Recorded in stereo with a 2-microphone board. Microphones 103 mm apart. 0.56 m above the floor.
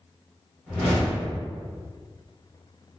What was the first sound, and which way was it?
A whoosh, 5° left (ahead or behind).